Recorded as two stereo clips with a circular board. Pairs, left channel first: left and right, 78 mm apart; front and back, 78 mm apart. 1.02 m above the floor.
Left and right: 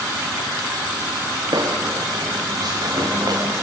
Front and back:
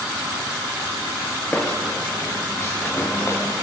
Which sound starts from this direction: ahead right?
Footsteps, at 1.5 s.